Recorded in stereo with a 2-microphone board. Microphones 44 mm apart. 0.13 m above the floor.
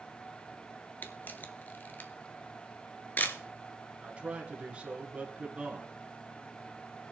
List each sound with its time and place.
1.0 s a camera shutter: 35° left (ahead or behind), 1.1 m
4.0 s a man speaking: 25° right (ahead or behind), 1.9 m